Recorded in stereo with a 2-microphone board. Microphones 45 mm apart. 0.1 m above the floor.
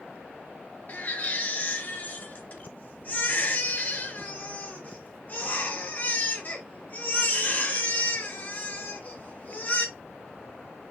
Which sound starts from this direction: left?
A baby crying, at 0.9 s.